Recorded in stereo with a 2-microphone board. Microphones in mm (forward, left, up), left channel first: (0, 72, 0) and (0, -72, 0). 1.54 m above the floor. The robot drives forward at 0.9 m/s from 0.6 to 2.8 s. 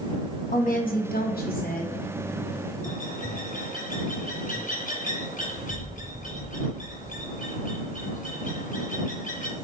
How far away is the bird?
About 0.8 m.